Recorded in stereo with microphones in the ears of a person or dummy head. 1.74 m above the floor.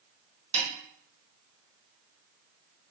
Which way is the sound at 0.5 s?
40° right (ahead or behind).